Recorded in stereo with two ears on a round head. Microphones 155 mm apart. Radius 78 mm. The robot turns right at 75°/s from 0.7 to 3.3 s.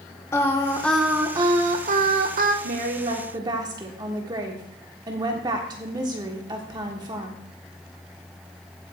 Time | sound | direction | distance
0.3 | singing | 160° left | 1.6 m
2.6 | a woman speaking | 80° right | 1.5 m